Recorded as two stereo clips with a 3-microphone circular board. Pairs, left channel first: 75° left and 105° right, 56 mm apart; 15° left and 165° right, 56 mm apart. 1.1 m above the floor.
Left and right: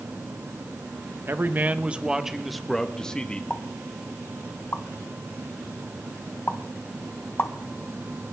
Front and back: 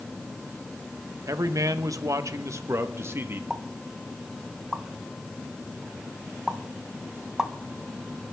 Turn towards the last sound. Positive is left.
turn(degrees=115)